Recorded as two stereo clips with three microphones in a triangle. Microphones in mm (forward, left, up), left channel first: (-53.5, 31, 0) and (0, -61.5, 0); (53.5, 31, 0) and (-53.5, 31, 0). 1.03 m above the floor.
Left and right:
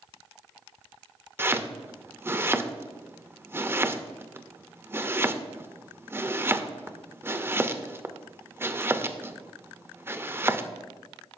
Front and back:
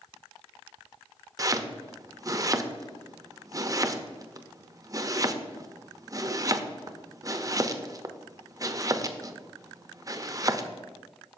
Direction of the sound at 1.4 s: 125° right.